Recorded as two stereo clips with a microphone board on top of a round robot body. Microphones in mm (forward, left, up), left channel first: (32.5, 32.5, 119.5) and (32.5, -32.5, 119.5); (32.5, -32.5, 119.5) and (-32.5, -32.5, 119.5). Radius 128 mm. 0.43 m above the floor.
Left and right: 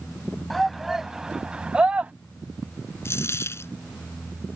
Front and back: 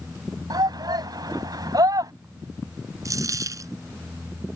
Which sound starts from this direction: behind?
A shout, at 0.5 s.